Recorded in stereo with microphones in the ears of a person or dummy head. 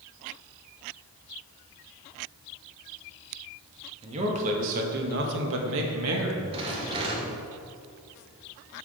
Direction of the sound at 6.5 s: 35° right (ahead or behind).